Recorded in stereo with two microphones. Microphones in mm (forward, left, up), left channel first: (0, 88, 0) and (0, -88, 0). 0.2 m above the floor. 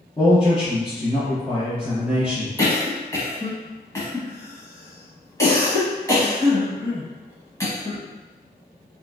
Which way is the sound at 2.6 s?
20° left (ahead or behind).